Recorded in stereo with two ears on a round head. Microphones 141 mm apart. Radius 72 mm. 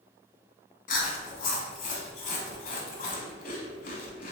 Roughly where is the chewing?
Left.